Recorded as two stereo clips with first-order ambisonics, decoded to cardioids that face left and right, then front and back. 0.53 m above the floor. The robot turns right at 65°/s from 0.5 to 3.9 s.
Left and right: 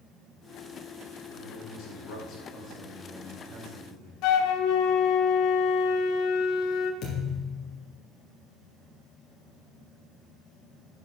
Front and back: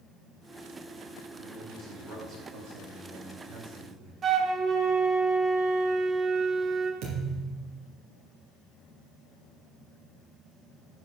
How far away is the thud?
About 4 m.